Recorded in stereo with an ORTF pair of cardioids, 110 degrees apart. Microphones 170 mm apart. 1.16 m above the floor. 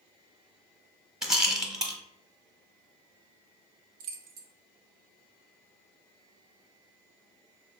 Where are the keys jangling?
65° right, 0.5 m.